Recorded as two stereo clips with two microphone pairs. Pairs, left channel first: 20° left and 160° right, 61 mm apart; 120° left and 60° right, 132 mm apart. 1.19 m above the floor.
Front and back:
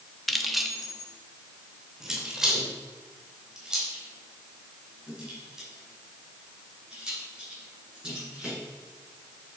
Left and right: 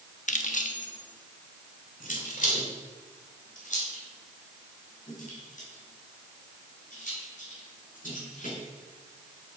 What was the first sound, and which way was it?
Keys jangling, 110° left.